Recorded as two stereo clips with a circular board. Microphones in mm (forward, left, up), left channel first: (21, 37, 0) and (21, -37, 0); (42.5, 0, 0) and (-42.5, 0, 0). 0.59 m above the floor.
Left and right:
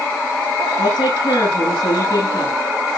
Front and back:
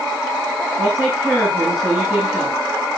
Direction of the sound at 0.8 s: 100° left.